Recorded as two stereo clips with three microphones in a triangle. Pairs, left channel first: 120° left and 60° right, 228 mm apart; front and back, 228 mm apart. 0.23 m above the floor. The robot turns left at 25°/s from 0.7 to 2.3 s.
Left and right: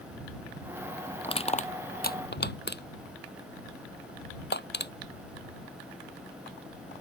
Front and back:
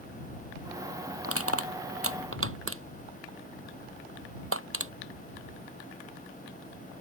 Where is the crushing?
175° right; by 4.9 s 160° left.